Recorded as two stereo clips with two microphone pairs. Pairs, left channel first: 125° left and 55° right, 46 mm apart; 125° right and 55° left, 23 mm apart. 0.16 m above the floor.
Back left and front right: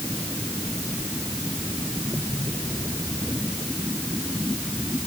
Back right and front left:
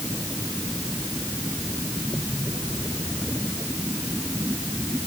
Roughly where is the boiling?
No boiling in this recording.